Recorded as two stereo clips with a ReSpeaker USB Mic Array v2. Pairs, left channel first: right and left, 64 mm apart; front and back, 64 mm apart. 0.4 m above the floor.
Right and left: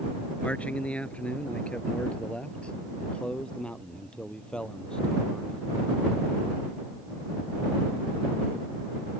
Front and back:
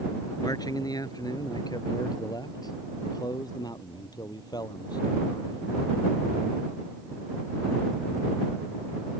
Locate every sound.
0.4 s a man speaking: 20° right; by 5.7 s 15° right